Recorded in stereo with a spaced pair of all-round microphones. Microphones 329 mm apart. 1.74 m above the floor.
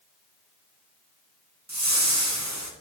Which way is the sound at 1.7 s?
55° right (ahead or behind).